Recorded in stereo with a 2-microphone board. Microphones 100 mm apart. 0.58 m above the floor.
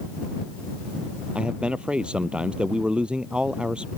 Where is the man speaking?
10° right (ahead or behind).